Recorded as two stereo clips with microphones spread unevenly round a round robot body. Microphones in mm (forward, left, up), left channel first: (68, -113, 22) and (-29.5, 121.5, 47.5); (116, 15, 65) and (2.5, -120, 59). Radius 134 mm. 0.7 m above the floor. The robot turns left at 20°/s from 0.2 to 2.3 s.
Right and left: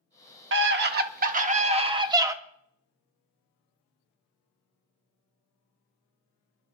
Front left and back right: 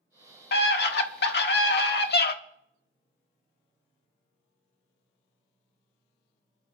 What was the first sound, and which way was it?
A scream, 70° left.